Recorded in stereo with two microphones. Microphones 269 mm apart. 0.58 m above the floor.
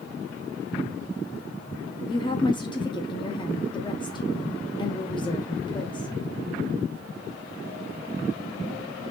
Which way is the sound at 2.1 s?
15° left (ahead or behind).